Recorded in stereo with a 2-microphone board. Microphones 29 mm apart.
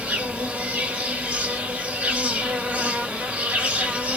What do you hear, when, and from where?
0.0 s an insect: 70° right (ahead or behind), 0.9 m